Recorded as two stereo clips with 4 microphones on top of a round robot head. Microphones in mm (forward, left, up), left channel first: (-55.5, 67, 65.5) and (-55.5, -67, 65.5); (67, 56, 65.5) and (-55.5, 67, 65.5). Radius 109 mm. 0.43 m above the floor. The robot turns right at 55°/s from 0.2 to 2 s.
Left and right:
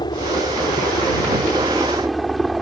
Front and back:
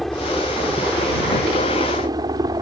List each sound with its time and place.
0.0 s a helicopter: 80° left; by 2.6 s straight behind